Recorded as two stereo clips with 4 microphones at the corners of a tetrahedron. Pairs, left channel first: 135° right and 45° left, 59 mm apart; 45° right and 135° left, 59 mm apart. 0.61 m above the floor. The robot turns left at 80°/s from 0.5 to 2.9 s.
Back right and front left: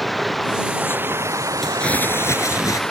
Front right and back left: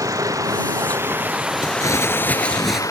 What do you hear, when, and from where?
0.0 s running water: 135° left; by 2.9 s 55° right
1.6 s crumpling: 45° right; by 2.8 s 140° right